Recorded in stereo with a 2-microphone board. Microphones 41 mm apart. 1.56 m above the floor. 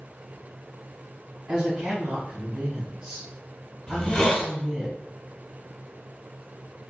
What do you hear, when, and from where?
1.5 s a woman speaking: 30° right (ahead or behind), 1.2 m
3.9 s a hiss: 20° left (ahead or behind), 0.8 m